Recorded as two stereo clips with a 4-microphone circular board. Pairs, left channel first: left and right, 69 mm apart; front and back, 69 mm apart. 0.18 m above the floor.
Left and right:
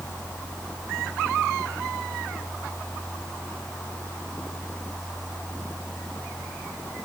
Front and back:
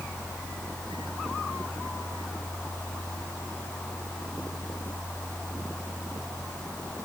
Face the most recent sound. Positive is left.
No sound to turn to.